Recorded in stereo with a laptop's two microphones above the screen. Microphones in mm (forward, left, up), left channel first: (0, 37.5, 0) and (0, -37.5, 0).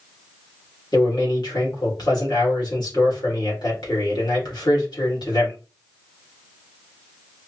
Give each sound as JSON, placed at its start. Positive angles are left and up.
{"t": 0.9, "sound": "a man speaking", "side_deg": 65, "distance_m": 2.0}